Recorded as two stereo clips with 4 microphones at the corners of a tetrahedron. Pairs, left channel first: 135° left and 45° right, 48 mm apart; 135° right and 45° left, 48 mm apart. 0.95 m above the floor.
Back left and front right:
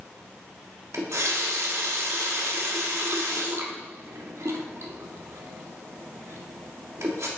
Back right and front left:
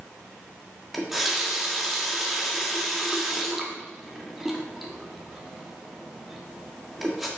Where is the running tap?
45° right, 1.3 m.